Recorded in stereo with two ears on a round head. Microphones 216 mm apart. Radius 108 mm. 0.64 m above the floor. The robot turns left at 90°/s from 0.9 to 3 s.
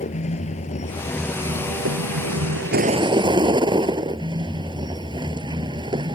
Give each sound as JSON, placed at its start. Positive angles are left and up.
{"t": 0.0, "sound": "a vehicle", "azimuth_deg": 30}